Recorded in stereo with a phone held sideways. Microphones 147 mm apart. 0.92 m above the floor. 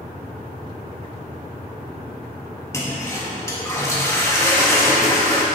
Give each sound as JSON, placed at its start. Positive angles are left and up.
{"t": 2.7, "sound": "a toilet flushing", "side_deg": 20, "distance_m": 1.4}